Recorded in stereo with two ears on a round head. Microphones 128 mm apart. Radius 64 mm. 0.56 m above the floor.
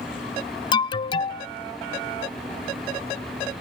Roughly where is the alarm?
Left.